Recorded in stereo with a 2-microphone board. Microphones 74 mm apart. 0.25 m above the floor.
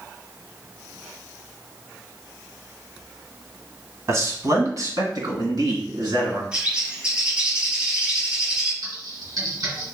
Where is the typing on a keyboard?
60° right (ahead or behind), 1.9 m.